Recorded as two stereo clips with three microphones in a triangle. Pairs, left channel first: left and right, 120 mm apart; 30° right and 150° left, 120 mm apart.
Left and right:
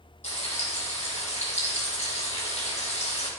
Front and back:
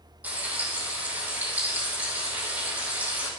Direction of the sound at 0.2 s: 75° left.